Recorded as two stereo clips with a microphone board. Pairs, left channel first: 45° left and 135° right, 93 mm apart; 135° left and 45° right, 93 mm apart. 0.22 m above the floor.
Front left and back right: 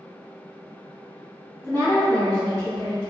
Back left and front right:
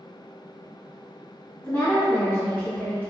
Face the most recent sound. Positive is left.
turn(degrees=75)